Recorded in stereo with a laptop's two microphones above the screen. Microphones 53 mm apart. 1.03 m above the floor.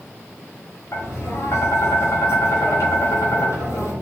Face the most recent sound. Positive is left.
turn(degrees=55)  # may be behind; listen again after turning